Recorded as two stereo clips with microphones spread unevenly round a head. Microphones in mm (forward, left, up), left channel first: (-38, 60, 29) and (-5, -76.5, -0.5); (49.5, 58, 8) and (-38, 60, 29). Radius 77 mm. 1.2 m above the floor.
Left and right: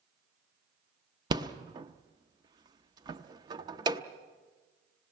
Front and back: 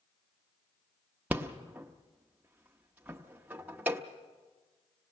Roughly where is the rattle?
Behind right.